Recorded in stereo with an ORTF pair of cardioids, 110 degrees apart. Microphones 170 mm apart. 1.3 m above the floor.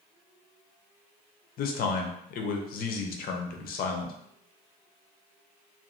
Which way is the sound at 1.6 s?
65° left.